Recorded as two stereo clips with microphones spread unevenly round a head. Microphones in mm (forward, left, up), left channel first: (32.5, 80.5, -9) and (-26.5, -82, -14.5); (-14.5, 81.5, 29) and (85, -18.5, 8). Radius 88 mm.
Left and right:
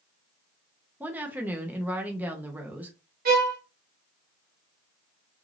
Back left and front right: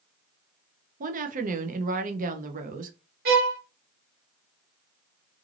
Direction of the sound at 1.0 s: 30° right.